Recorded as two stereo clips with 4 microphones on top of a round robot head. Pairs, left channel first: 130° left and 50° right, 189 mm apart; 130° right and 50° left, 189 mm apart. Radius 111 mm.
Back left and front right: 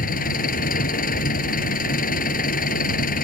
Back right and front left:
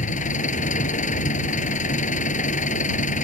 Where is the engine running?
175° left.